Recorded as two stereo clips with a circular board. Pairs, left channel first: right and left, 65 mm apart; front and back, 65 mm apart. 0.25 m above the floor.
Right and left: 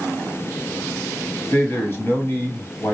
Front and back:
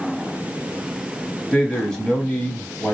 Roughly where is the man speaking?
Right.